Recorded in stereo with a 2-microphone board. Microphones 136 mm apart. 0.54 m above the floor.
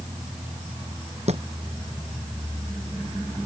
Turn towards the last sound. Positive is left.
turn(degrees=-50)  # may be behind; listen again after turning